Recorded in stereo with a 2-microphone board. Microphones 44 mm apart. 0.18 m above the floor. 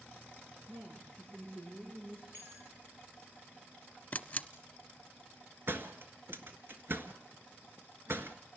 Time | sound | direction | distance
0.7 | a woman speaking | 70° right (ahead or behind) | 9.5 m
2.3 | a bell | 55° right (ahead or behind) | 3.5 m
4.1 | a camera shutter | 35° left (ahead or behind) | 0.8 m
5.7 | a door slam | 60° right (ahead or behind) | 1.6 m